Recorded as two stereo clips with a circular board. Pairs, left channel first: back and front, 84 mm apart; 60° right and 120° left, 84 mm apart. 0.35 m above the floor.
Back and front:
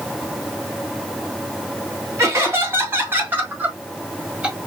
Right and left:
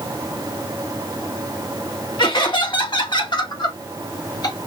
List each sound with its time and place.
2.2 s laughter: 55° right, 3 m; by 4.6 s 75° right, 1.8 m